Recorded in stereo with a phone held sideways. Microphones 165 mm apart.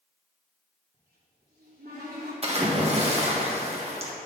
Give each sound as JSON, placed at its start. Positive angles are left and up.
{"t": 0.9, "sound": "a cupboard door", "side_deg": -70, "distance_m": 3.0}
{"t": 2.4, "sound": "a splash", "side_deg": -40, "distance_m": 1.7}